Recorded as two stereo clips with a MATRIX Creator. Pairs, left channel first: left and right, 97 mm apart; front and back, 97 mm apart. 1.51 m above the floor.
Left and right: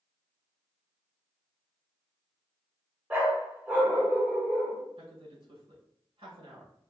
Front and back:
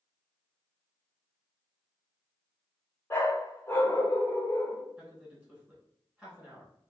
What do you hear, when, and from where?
3.1 s a dog barking: 40° right, 1.3 m
5.0 s a man speaking: 105° right, 1.8 m